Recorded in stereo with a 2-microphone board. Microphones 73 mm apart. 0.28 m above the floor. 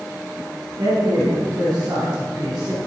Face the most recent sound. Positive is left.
turn(degrees=-60)  # may be behind; listen again after turning